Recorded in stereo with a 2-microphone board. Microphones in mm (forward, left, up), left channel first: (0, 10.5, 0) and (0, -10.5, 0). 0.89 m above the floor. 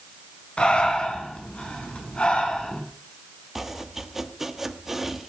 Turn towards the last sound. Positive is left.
turn(degrees=-5)  # may be behind; listen again after turning